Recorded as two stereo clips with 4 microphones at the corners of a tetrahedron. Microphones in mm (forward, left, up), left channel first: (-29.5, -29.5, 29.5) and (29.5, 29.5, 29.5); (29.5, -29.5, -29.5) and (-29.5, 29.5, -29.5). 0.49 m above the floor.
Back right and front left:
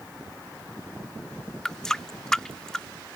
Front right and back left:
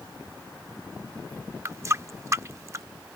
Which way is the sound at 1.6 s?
145° left.